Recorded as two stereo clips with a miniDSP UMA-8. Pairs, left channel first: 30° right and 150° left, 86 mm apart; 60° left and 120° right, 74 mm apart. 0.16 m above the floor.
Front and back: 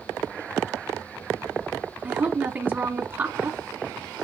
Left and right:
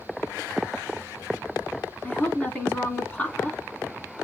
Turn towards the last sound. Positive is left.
turn(degrees=110)